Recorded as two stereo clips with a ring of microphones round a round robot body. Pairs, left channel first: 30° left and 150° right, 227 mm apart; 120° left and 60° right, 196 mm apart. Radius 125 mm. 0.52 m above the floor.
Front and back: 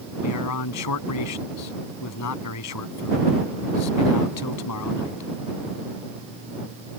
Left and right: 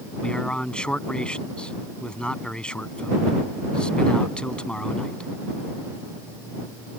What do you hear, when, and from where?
0.2 s a man speaking: 35° left